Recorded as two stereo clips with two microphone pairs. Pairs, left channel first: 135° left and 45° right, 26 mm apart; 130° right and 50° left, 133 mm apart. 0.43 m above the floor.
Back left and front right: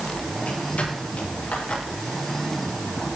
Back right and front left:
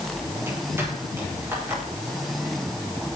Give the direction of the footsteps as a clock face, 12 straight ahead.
8 o'clock.